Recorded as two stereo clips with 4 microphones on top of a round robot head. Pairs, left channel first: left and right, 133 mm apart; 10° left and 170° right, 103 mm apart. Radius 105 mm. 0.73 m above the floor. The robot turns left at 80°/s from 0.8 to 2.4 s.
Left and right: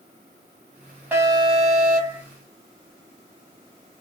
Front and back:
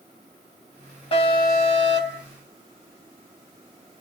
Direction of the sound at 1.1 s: 15° right.